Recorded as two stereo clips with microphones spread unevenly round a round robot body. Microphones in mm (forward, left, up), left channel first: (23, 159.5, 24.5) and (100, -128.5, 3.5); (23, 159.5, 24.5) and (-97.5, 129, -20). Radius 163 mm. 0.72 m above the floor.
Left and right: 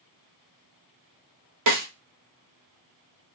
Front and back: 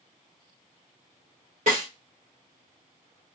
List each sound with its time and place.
1.7 s a snare drum: 115° right, 0.8 m